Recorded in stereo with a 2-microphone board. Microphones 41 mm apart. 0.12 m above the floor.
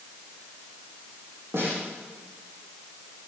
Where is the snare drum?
75° right (ahead or behind), 6.5 m.